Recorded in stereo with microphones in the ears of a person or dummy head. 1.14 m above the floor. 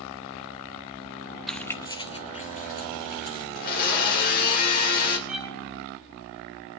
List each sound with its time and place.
1.5 s keys jangling: centre (ahead or behind), 0.6 m; by 3.5 s 50° left (ahead or behind), 1.9 m
3.5 s a blender: 50° left (ahead or behind), 3 m
5.3 s a violin: 5° right (ahead or behind), 2.5 m